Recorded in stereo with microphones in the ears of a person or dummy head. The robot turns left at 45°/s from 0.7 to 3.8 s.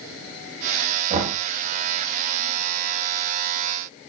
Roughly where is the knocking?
Right.